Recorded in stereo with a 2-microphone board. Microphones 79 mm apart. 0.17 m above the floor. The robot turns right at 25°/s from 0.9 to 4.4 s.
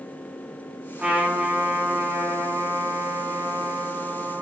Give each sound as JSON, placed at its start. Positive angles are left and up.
{"t": 1.0, "sound": "a trumpet", "azimuth_deg": -155, "distance_m": 2.0}